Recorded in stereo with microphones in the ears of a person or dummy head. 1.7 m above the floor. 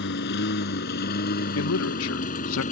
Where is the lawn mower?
60° left (ahead or behind); by 2.7 s 40° left (ahead or behind).